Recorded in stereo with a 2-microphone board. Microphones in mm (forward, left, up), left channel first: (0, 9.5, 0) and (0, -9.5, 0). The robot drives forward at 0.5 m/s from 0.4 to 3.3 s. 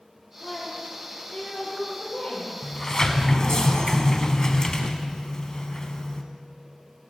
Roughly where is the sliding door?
Left.